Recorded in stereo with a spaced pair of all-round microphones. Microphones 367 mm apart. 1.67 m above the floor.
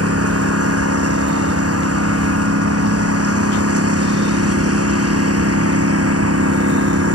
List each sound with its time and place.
0.0 s a lawn mower: 40° right (ahead or behind)